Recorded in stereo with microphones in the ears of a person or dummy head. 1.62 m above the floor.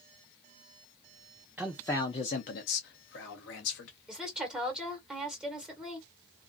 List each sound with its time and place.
1.6 s a man speaking: 5° right (ahead or behind), 0.5 m; by 3.9 s 70° left (ahead or behind), 1.1 m
4.1 s a woman speaking: 5° right (ahead or behind), 1.3 m